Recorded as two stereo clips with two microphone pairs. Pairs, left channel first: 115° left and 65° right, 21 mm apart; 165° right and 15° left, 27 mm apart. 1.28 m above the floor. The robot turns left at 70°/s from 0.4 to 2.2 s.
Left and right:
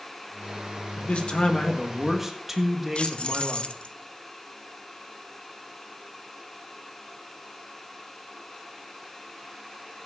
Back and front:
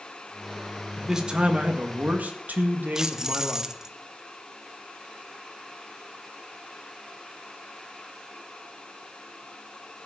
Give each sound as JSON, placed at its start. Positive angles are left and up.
{"t": 1.0, "sound": "a man speaking", "azimuth_deg": 95, "distance_m": 1.8}
{"t": 3.0, "sound": "keys jangling", "azimuth_deg": 80, "distance_m": 0.6}